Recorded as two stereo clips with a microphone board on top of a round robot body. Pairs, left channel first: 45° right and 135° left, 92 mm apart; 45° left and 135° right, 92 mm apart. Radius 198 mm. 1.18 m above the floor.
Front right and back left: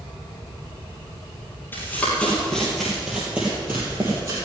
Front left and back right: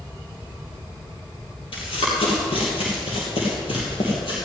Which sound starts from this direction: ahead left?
Running footsteps, at 1.7 s.